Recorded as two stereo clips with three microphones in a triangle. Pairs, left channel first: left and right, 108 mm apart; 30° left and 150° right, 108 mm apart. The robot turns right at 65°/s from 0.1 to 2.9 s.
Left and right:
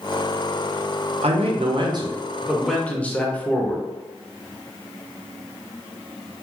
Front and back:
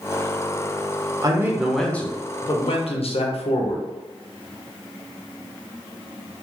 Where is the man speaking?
95° right, 0.6 m; by 3.9 s 15° left, 0.6 m.